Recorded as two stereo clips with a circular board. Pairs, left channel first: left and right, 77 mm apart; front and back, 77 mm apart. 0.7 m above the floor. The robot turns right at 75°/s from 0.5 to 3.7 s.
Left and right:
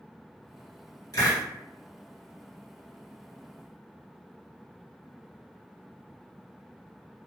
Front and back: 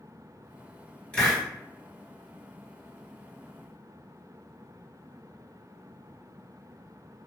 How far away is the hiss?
About 1.3 m.